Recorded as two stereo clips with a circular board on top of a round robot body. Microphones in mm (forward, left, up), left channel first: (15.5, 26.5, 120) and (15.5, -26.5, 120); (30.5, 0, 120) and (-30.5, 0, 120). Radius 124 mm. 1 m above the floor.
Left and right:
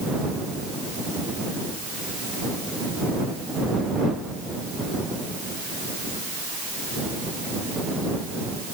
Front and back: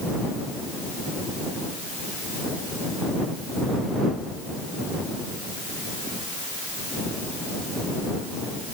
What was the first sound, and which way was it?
Only background noise.